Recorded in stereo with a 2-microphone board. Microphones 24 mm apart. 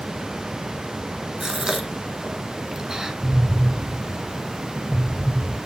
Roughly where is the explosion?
Left.